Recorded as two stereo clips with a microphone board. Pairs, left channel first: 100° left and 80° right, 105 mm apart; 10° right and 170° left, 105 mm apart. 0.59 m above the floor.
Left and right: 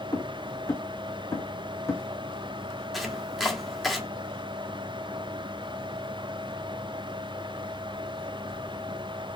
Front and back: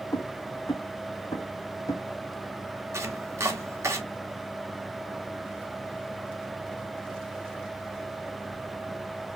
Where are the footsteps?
45° left, 2.5 m; by 2.0 s 40° left, 1.5 m.